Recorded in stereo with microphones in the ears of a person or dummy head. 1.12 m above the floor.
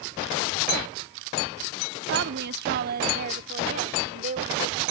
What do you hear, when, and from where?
2.1 s a woman speaking: 60° right (ahead or behind); by 4.9 s 40° right (ahead or behind)